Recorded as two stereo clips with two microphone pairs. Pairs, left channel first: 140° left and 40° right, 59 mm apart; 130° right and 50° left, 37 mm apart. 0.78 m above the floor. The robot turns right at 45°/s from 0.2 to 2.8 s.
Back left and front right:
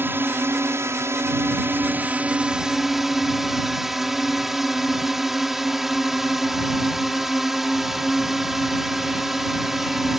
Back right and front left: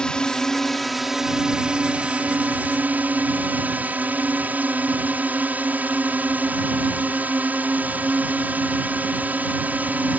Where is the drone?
70° right; by 10.2 s 45° left.